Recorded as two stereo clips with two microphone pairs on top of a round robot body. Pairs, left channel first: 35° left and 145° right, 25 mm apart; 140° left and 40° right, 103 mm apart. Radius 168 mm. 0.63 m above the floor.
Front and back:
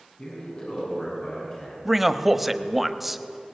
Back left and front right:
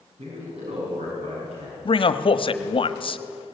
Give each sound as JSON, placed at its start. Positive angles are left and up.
{"t": 0.2, "sound": "a man speaking", "azimuth_deg": -25, "distance_m": 7.5}
{"t": 1.9, "sound": "a man speaking", "azimuth_deg": 130, "distance_m": 1.4}